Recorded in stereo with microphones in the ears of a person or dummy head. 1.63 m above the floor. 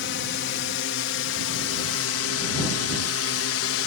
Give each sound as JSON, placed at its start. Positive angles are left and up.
{"t": 0.0, "sound": "a drone", "side_deg": 55}